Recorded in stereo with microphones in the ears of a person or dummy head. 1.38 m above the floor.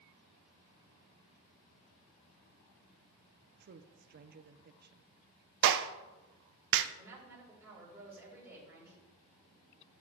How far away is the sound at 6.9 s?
About 4 m.